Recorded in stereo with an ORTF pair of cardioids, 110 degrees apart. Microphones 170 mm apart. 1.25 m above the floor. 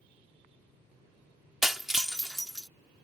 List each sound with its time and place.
1.6 s breaking glass: 5° right